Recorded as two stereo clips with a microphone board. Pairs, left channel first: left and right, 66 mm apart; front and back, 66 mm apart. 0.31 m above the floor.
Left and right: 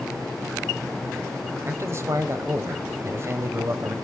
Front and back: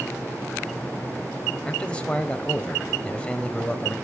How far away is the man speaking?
About 1.5 m.